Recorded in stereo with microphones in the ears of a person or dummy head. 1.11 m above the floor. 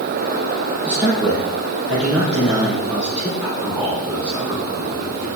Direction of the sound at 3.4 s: 10° right (ahead or behind).